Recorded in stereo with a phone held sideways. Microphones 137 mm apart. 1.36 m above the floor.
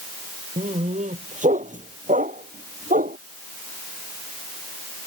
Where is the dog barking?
55° right (ahead or behind); by 3.2 s 70° right (ahead or behind).